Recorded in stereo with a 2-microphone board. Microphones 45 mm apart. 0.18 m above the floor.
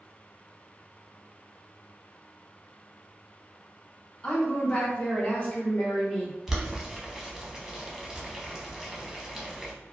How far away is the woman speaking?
About 1.1 m.